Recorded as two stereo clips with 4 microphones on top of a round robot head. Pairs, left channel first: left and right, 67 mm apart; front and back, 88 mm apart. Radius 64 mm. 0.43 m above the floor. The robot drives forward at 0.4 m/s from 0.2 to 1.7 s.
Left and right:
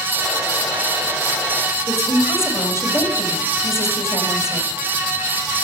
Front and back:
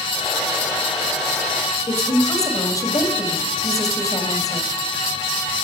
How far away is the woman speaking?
About 2 m.